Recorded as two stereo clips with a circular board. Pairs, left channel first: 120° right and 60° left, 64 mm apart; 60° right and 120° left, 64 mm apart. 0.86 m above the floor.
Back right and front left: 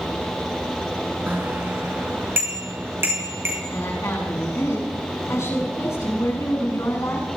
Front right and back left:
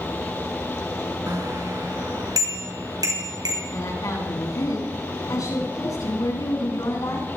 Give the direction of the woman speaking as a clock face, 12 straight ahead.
3 o'clock.